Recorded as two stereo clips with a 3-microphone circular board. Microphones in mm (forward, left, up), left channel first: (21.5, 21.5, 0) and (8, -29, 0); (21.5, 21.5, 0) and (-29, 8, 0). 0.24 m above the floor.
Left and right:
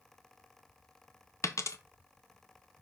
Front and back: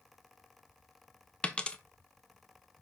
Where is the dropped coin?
85° left, 0.6 m.